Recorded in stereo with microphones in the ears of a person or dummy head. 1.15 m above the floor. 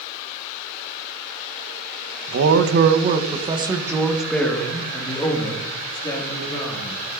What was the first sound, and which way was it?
A man speaking, 70° right (ahead or behind).